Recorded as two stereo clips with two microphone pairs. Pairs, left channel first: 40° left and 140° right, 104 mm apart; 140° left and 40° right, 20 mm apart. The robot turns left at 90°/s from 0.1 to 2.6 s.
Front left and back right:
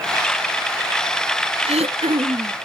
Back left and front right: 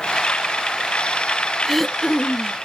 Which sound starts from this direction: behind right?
Throat clearing, at 1.6 s.